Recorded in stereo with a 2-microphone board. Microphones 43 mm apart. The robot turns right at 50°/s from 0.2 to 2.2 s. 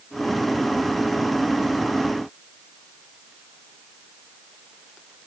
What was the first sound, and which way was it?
Only background noise.